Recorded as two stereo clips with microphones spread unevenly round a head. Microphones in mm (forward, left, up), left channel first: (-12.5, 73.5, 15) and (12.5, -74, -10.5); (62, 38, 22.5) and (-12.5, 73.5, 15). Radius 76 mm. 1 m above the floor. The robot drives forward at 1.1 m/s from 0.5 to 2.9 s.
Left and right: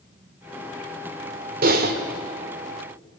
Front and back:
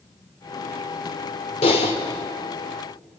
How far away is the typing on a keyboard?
About 1.8 m.